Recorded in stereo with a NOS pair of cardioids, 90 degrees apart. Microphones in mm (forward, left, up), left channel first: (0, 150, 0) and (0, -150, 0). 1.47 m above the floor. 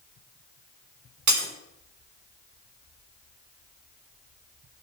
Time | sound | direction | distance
1.3 | breaking glass | 70° right | 3.5 m